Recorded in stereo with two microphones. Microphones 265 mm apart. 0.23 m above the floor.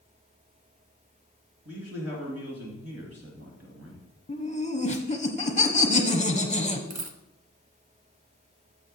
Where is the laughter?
25° left (ahead or behind), 1.1 m.